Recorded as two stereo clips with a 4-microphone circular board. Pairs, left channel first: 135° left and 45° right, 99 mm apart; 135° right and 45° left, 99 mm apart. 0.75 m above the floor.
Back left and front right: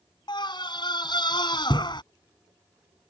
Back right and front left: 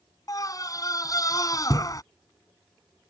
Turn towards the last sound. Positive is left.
turn(degrees=175)